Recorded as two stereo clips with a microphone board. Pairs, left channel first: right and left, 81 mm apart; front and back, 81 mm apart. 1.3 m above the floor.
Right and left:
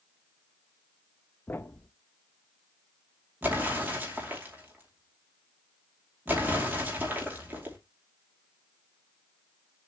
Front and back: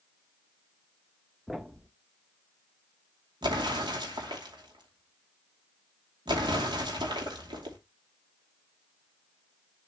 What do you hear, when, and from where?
1.5 s a thud: 95° right, 0.6 m
3.4 s an explosion: 160° left, 2.5 m